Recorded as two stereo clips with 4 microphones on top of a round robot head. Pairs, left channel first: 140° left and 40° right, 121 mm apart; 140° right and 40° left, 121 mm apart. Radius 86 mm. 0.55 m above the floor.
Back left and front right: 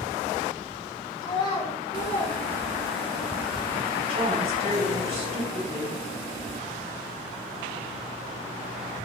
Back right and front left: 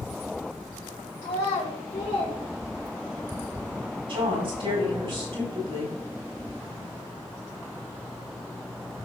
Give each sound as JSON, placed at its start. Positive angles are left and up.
{"t": 1.2, "sound": "a child speaking", "azimuth_deg": -170, "distance_m": 2.5}
{"t": 4.1, "sound": "a woman speaking", "azimuth_deg": -5, "distance_m": 4.5}